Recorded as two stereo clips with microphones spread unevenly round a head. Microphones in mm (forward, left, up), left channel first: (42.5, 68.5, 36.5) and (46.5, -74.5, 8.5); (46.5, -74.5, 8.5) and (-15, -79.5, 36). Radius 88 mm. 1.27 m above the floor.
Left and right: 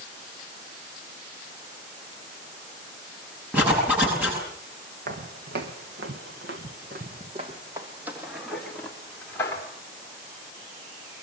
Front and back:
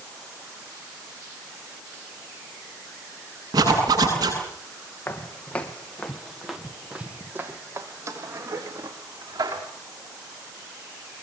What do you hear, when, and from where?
3.5 s a zipper: 170° right, 9 m
5.1 s footsteps: 70° right, 3.5 m; by 9.6 s 165° left, 4.5 m